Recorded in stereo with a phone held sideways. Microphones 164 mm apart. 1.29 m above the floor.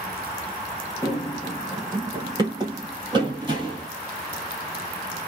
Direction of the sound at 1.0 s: 20° right (ahead or behind).